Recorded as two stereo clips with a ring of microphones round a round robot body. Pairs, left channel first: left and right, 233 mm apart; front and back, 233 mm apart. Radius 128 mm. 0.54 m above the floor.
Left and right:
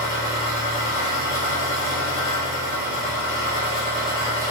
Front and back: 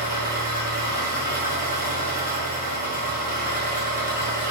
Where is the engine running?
50° left, 1.0 m.